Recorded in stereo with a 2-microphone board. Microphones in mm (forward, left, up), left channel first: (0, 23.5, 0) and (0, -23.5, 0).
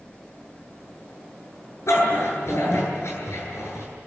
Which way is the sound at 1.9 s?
75° left (ahead or behind).